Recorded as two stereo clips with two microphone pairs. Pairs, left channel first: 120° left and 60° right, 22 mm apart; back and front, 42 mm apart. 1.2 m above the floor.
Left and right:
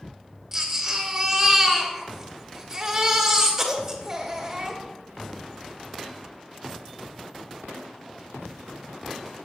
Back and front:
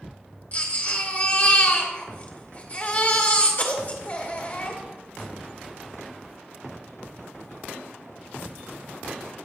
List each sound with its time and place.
0.5 s a baby crying: 130° right, 2 m